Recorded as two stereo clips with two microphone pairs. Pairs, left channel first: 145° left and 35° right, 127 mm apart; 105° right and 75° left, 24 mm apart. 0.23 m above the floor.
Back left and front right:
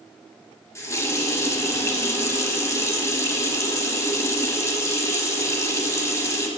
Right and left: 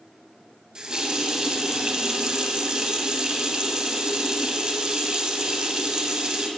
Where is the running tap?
95° left, 0.7 m.